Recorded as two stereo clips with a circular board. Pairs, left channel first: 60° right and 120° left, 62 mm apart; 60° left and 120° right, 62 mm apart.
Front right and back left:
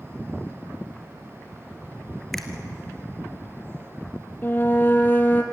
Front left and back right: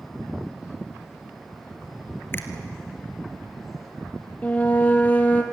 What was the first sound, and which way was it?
A finger snap, 25° left.